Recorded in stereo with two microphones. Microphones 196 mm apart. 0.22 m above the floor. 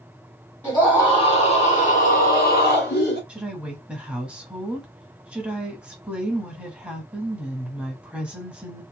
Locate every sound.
0.6 s a scream: 10° left (ahead or behind), 1.5 m; by 3.2 s 60° left (ahead or behind), 1.9 m
3.3 s a woman speaking: 5° right (ahead or behind), 1.1 m